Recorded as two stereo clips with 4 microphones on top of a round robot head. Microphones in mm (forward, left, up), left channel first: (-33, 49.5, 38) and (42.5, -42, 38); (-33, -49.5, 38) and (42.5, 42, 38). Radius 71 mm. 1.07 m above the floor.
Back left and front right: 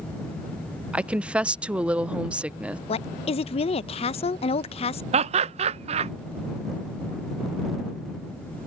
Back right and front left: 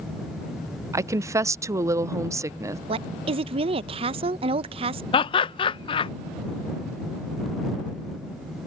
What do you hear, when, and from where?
0.9 s a woman speaking: 20° left
2.9 s a woman speaking: 90° left
5.1 s laughter: 85° right